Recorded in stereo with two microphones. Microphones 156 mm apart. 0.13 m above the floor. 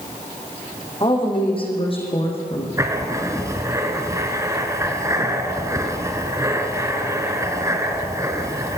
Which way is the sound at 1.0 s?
30° left (ahead or behind).